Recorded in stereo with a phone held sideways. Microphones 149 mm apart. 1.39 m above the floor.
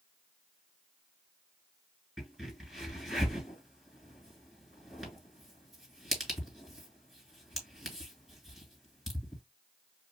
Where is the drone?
No drone in this recording.